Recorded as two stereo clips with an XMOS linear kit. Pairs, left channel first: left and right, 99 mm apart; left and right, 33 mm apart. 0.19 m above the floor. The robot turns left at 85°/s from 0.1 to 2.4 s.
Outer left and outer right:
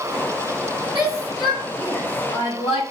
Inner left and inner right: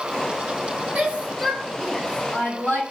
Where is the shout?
45° right (ahead or behind), 5 m; by 2.8 s 70° left (ahead or behind), 5 m.